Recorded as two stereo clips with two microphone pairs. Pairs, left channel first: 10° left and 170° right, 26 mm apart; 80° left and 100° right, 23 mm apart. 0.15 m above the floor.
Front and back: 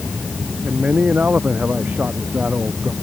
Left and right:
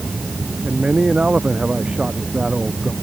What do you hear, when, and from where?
0.6 s a man speaking: 140° right